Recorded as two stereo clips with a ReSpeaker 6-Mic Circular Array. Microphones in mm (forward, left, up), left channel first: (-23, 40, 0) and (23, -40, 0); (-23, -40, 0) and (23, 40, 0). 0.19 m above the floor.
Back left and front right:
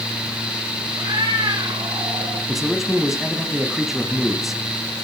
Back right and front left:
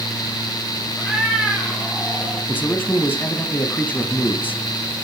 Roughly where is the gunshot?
I don't hear a gunshot.